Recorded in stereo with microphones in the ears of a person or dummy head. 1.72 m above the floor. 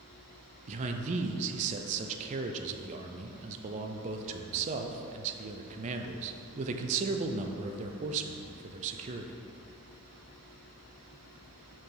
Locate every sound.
0.7 s a man speaking: 40° right (ahead or behind), 0.6 m